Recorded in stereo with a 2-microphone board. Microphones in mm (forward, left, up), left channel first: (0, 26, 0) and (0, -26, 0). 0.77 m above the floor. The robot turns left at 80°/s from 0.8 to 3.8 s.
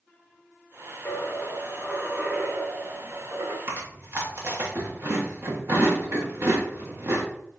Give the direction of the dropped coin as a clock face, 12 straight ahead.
10 o'clock.